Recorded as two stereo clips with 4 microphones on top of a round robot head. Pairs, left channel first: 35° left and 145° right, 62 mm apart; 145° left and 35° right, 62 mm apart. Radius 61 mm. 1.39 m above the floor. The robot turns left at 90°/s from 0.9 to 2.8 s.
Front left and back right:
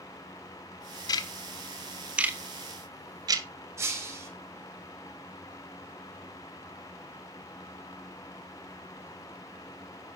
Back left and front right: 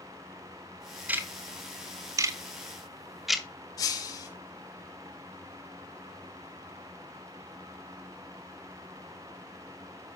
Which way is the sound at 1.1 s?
30° left.